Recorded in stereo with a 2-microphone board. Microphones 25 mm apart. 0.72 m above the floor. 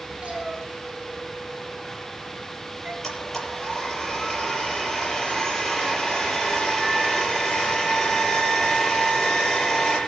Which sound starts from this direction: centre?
A blender, at 3.0 s.